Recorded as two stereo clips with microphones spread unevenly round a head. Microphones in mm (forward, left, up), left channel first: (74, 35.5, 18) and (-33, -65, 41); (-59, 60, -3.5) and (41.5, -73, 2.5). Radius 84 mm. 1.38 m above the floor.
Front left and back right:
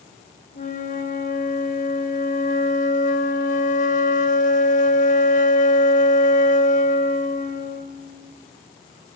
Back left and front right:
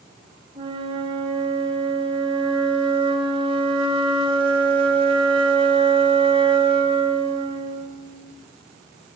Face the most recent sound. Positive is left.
turn(degrees=5)